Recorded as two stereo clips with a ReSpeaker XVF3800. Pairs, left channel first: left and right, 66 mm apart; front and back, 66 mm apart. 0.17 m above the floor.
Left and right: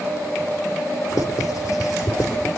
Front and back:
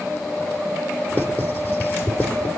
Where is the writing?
55° left, 3 m.